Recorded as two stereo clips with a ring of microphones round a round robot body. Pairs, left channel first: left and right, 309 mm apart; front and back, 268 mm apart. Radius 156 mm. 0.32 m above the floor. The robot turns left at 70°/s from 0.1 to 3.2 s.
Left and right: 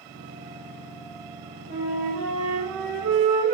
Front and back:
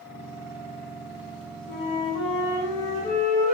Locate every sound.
1.7 s a flute: 45° left, 3.5 m; by 3.5 s 60° right, 3.5 m